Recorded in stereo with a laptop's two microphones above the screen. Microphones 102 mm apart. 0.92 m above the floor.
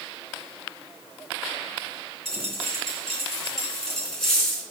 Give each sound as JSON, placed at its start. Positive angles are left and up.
{"t": 2.2, "sound": "a dropped coin", "side_deg": 5, "distance_m": 3.5}